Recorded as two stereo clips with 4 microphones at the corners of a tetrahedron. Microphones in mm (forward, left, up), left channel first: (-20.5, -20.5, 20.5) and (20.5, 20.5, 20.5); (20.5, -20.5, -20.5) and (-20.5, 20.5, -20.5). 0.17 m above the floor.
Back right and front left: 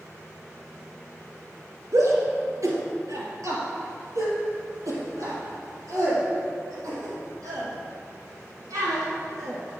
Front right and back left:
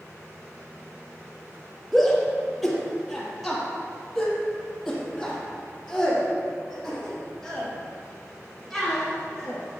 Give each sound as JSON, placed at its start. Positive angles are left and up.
{"t": 1.9, "sound": "a shout", "azimuth_deg": 40, "distance_m": 3.0}